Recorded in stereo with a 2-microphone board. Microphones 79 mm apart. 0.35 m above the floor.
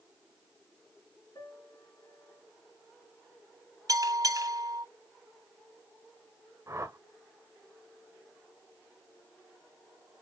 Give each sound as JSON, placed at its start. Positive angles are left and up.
{"t": 1.4, "sound": "a piano", "side_deg": 45, "distance_m": 3.0}
{"t": 3.9, "sound": "a bell", "side_deg": -50, "distance_m": 2.0}
{"t": 6.7, "sound": "a whoosh", "side_deg": -35, "distance_m": 1.5}